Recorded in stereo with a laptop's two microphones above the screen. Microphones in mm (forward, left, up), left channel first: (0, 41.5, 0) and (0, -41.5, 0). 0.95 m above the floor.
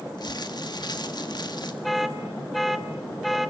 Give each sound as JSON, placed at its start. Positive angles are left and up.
{"t": 0.2, "sound": "crumpling", "side_deg": 60, "distance_m": 2.0}
{"t": 1.8, "sound": "an alarm", "side_deg": 0, "distance_m": 1.0}